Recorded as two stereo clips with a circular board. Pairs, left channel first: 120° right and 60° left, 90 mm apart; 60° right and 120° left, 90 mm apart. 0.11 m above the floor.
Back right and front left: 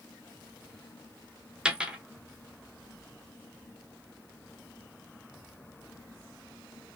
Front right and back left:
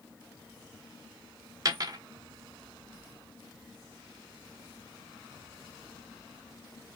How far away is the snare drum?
No snare drum in this recording.